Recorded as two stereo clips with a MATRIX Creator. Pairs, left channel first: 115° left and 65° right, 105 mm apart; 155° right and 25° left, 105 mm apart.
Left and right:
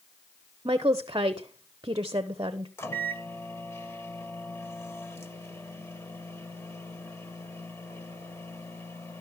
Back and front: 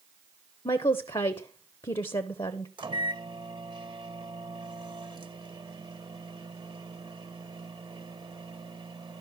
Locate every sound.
0.7 s a woman speaking: 115° right, 0.6 m
2.8 s a microwave: 55° left, 1.0 m